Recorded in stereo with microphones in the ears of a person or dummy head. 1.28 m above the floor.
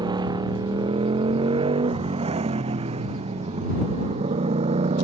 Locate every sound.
0.0 s a motorcycle: 25° right (ahead or behind); by 5.0 s 35° right (ahead or behind)